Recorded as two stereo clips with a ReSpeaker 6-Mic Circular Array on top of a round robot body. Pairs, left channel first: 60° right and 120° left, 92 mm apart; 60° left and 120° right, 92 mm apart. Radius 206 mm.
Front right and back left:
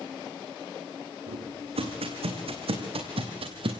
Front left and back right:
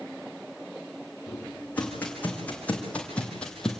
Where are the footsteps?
135° left, 4 m; by 3.8 s 145° left, 1.6 m.